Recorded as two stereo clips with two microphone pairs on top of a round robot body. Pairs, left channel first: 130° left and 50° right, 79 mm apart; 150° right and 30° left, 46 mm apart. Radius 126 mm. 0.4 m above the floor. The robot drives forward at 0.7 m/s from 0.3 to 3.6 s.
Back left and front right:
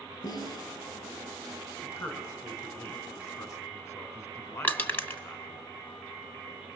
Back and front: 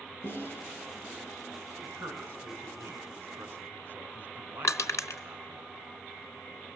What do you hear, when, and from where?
0.2 s a snare drum: 165° left, 8.5 m
1.8 s a man speaking: 65° left, 5 m; by 5.6 s 80° left, 5 m
4.6 s crushing: 165° right, 2 m